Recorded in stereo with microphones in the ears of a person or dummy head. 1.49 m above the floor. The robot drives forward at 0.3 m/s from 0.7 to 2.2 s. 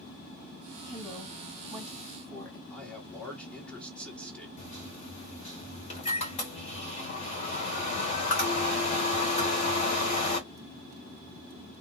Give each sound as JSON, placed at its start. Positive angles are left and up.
{"t": 0.9, "sound": "a woman speaking", "side_deg": 20, "distance_m": 1.7}
{"t": 2.7, "sound": "a man speaking", "side_deg": 5, "distance_m": 1.6}
{"t": 4.6, "sound": "a microwave", "side_deg": 40, "distance_m": 1.1}